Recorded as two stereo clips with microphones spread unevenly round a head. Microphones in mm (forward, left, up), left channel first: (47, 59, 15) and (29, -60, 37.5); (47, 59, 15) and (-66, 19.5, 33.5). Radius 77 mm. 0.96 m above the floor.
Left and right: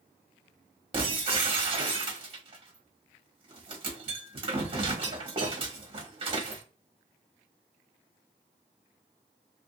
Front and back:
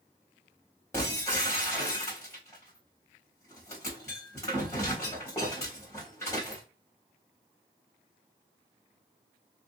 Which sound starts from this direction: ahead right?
Breaking glass, at 0.9 s.